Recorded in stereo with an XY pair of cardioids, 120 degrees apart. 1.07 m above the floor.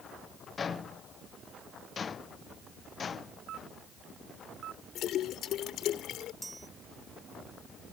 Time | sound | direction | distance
0.6 | footsteps | 30° left | ?
3.5 | a camera shutter | 60° right | ?
5.0 | a splash | 65° left | ?
6.4 | a chime | 20° right | ?